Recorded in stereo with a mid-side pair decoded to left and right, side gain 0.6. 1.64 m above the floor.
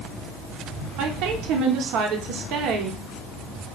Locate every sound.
1.0 s a woman speaking: 70° right, 1.2 m